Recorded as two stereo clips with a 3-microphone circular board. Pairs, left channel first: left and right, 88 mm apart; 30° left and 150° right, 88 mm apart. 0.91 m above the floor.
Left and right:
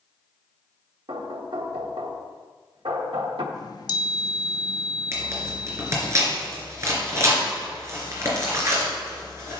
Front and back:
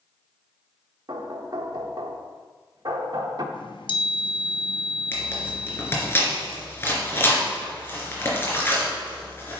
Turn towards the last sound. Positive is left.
turn(degrees=-35)